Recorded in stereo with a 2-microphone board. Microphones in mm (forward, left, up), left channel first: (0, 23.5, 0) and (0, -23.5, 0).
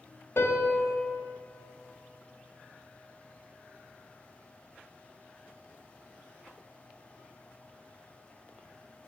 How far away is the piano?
About 1.1 m.